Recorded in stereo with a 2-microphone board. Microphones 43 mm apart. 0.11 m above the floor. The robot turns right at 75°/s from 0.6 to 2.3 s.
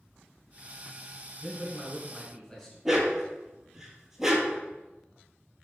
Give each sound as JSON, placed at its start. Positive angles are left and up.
{"t": 1.4, "sound": "a man speaking", "side_deg": 20, "distance_m": 1.1}
{"t": 2.9, "sound": "a dog barking", "side_deg": -10, "distance_m": 0.6}